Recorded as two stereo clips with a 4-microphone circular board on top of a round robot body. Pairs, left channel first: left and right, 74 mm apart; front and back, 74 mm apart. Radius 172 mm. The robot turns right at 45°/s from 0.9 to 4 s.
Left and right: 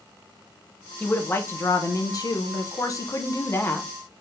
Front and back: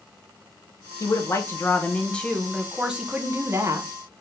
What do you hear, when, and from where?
1.0 s a woman speaking: 20° left, 1.0 m; by 3.9 s 150° left, 1.0 m